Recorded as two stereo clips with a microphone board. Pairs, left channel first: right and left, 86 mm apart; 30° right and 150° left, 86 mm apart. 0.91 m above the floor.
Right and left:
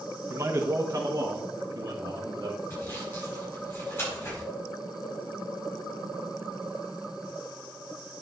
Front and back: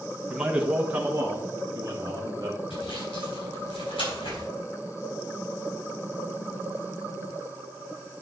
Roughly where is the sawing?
Ahead right.